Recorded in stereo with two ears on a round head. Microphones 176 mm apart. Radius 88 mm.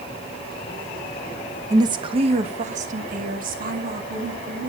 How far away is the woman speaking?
About 0.8 m.